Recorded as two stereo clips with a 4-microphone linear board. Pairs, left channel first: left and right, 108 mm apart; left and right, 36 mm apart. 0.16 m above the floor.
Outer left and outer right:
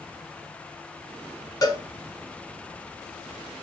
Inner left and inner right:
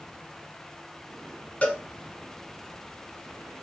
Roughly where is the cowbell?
Left.